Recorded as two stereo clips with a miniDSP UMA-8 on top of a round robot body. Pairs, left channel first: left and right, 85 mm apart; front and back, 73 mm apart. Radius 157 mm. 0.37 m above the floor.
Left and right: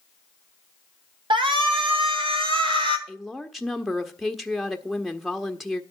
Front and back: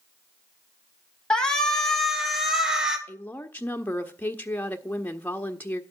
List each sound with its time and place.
1.3 s a shout: 80° right, 3 m; by 3.0 s 100° right, 3.5 m
3.1 s a woman speaking: straight ahead, 1.2 m